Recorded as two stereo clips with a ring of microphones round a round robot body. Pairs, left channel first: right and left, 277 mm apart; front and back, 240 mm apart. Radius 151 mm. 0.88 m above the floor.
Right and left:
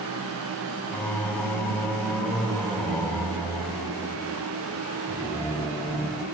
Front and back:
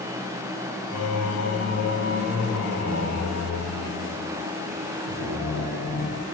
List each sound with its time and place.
0.9 s singing: 5° right, 0.9 m